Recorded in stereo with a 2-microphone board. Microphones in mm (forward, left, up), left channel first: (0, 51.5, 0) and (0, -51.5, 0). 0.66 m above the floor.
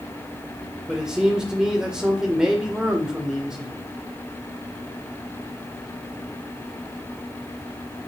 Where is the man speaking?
5° right (ahead or behind), 1.8 m.